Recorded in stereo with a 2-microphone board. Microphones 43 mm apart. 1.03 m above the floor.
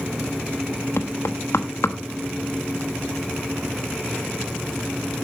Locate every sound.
1.0 s knocking: 75° left (ahead or behind), 1.1 m